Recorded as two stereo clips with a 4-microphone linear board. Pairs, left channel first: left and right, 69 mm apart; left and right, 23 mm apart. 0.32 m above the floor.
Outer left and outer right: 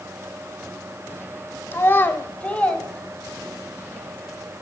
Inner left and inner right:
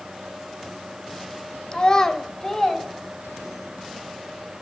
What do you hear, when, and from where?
1.7 s a child speaking: 35° left (ahead or behind), 0.8 m; by 3.7 s 5° left (ahead or behind), 2.0 m